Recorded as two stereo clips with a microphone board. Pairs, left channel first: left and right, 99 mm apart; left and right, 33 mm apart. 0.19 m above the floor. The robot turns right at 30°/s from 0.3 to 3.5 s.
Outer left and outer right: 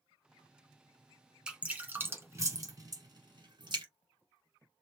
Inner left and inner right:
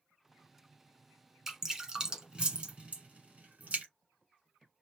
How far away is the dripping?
About 1.3 m.